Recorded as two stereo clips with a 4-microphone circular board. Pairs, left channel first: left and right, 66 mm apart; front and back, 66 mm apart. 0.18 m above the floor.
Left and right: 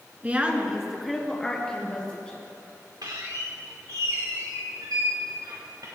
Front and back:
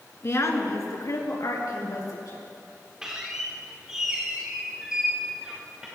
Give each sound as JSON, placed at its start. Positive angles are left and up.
{"t": 0.2, "sound": "a woman speaking", "azimuth_deg": -30, "distance_m": 1.8}
{"t": 3.0, "sound": "a squeak", "azimuth_deg": -100, "distance_m": 3.5}